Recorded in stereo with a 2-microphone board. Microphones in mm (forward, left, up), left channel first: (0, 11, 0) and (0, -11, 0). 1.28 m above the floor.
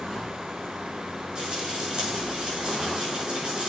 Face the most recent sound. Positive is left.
turn(degrees=-40)  # may be behind; listen again after turning